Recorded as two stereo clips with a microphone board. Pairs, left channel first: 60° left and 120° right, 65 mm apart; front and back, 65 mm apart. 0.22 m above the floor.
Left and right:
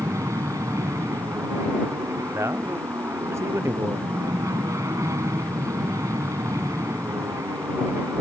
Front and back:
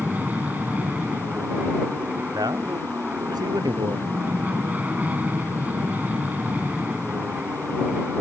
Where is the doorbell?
No doorbell in this recording.